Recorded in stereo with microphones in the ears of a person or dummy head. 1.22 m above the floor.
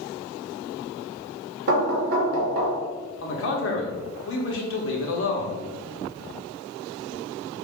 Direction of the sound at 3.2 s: 60° left (ahead or behind).